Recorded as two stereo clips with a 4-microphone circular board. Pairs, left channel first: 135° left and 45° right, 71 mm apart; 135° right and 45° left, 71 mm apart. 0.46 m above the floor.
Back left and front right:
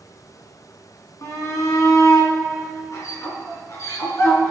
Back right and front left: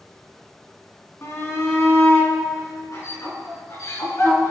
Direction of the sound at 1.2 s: 175° left.